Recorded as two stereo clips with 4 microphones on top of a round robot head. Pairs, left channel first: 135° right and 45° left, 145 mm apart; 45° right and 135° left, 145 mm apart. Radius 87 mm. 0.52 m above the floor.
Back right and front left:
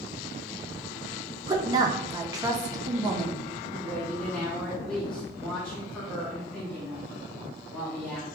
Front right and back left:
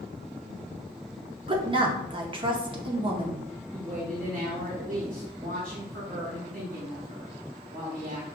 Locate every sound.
1.5 s a woman speaking: 95° left, 0.9 m
3.7 s a woman speaking: 140° left, 1.3 m